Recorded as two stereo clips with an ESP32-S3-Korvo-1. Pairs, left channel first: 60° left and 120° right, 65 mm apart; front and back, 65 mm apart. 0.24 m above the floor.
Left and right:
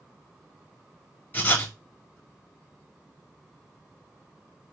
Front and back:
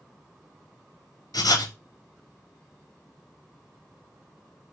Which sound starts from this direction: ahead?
Writing, at 1.3 s.